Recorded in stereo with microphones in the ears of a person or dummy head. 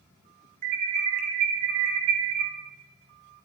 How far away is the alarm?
About 2.5 m.